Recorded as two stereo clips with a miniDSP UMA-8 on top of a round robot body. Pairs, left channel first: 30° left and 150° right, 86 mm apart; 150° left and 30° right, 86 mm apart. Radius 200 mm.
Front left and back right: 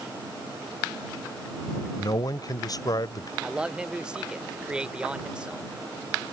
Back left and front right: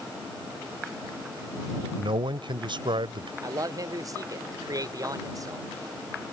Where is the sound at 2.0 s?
10° right.